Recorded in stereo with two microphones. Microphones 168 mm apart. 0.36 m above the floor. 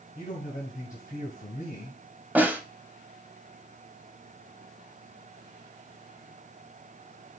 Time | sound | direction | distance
0.1 | a man speaking | 55° left (ahead or behind) | 1.9 m
2.4 | a snare drum | 10° right (ahead or behind) | 0.7 m